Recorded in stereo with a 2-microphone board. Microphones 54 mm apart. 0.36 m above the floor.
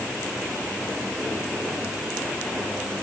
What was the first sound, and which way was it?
Only background noise.